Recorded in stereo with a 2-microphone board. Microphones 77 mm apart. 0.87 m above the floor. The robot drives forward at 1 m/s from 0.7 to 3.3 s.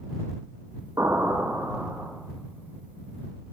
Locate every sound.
1.0 s an explosion: 50° right (ahead or behind), 4 m; by 2.1 s 40° right (ahead or behind), 4.5 m